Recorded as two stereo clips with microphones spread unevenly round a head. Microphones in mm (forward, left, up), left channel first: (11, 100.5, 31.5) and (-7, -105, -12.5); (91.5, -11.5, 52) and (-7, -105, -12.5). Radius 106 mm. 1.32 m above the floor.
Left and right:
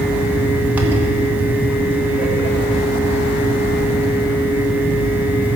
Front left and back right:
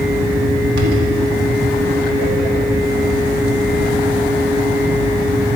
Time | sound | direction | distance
0.0 | a fan | straight behind | 1.1 m